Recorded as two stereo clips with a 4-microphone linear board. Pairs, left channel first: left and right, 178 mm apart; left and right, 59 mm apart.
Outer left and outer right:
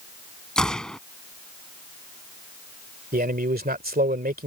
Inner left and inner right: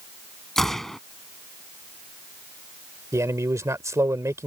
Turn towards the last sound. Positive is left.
turn(degrees=-65)  # may be behind; listen again after turning